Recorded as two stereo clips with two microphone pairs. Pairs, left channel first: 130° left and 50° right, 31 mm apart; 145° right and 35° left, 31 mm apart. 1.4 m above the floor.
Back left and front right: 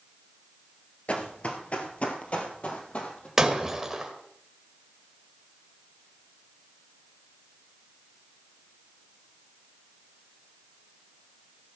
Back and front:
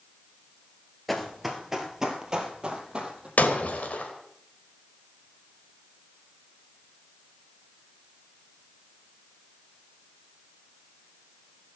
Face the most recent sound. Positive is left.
turn(degrees=-130)